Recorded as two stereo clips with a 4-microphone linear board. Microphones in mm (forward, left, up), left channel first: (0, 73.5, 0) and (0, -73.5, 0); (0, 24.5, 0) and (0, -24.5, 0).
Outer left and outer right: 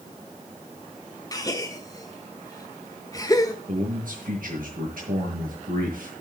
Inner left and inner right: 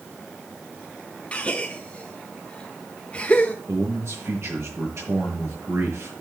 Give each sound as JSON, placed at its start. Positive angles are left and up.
{"t": 1.3, "sound": "a gasp", "side_deg": 25, "distance_m": 1.6}
{"t": 3.7, "sound": "a man speaking", "side_deg": -70, "distance_m": 6.5}